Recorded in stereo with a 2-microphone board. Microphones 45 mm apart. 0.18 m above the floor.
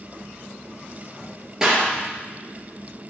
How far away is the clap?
About 2.5 m.